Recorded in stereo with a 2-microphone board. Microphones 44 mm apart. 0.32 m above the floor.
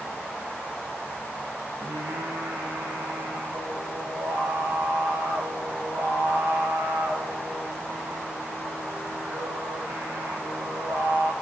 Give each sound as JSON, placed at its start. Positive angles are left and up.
{"t": 1.8, "sound": "singing", "side_deg": -75, "distance_m": 6.0}